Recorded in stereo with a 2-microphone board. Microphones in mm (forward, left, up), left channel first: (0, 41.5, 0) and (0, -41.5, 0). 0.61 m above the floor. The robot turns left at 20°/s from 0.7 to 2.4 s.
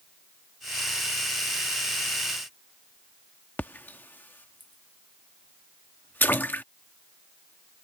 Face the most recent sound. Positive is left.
turn(degrees=20)  # may be behind; listen again after turning